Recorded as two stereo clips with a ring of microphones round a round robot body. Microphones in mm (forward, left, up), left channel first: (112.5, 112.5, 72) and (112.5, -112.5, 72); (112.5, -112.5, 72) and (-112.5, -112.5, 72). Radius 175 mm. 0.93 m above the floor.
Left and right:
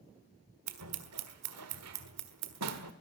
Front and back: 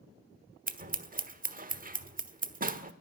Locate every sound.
0.7 s scissors: 125° right, 1.3 m